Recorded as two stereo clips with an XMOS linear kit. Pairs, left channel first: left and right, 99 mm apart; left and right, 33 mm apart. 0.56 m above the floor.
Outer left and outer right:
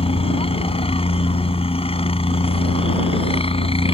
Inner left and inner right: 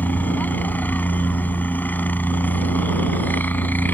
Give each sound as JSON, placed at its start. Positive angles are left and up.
{"t": 0.0, "sound": "a helicopter", "side_deg": 75}